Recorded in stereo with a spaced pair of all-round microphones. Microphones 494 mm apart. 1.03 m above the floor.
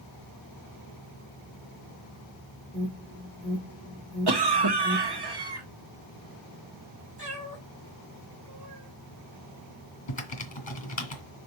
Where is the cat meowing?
50° right (ahead or behind), 2.5 m.